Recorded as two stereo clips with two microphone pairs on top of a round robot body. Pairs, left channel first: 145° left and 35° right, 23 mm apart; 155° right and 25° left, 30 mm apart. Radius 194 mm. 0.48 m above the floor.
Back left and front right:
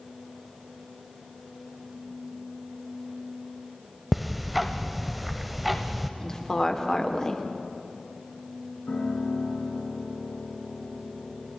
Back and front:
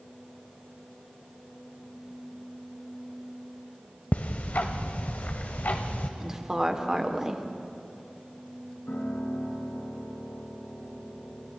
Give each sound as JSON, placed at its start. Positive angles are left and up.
{"t": 4.1, "sound": "ticking", "azimuth_deg": -115, "distance_m": 0.8}
{"t": 6.2, "sound": "a woman speaking", "azimuth_deg": 90, "distance_m": 2.5}
{"t": 8.9, "sound": "a piano", "azimuth_deg": 175, "distance_m": 6.5}